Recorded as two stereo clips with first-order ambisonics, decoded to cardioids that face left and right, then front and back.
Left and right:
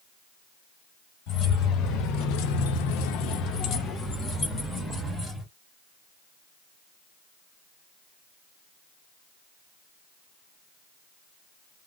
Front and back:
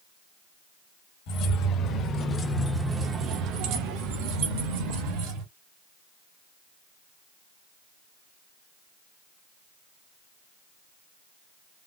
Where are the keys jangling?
40° left, 1.4 m; by 5.5 s 175° left, 2.0 m.